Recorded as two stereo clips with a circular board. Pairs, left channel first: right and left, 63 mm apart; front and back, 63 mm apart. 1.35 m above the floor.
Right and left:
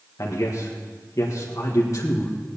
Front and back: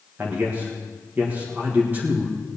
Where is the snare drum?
No snare drum in this recording.